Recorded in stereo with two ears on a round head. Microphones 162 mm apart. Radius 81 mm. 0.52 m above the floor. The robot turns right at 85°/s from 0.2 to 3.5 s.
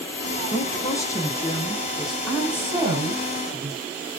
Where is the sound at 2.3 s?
165° left, 1.9 m; by 3.8 s 90° right, 1.9 m.